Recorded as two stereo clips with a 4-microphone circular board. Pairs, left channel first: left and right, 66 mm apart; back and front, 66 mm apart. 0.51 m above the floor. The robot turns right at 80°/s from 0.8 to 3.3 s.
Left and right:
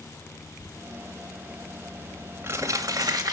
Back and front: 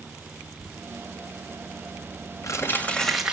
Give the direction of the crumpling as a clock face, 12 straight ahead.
9 o'clock.